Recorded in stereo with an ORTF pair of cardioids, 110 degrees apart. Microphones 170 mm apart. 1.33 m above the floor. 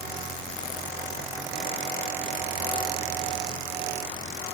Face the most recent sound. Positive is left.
No sound to turn to.